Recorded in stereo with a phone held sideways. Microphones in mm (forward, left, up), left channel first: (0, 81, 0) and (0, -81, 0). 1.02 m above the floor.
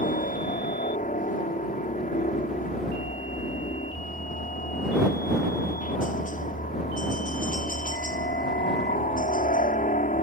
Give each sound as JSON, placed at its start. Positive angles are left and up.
{"t": 0.0, "sound": "a helicopter", "side_deg": 55}